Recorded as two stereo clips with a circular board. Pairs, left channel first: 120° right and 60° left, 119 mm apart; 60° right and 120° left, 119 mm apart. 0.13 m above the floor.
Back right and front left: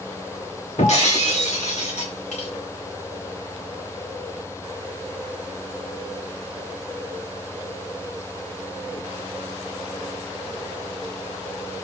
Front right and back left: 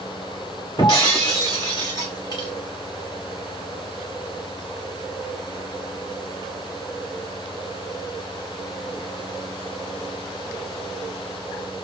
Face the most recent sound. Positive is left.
turn(degrees=-115)